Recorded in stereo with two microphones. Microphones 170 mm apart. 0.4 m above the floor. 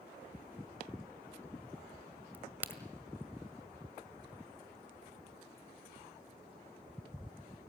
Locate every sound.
2.3 s a crack: 10° right (ahead or behind), 1.7 m